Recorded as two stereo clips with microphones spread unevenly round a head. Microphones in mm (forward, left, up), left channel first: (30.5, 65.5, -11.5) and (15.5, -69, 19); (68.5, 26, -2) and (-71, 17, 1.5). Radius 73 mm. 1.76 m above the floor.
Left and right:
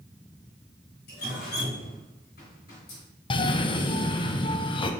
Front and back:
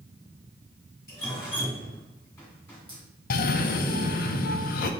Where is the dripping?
75° left, 1.7 m.